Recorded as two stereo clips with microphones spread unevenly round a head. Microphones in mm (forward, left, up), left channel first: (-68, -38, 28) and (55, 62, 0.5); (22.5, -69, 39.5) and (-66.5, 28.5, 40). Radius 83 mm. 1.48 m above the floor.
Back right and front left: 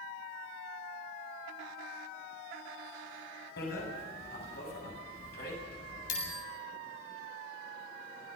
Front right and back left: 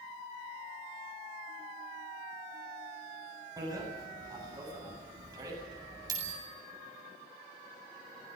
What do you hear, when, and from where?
3.6 s a bicycle bell: 165° right, 8 m